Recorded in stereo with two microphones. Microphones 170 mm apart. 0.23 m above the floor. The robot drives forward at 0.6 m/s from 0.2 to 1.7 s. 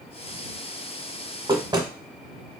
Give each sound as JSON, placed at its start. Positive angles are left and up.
{"t": 1.5, "sound": "knocking", "side_deg": -30, "distance_m": 1.0}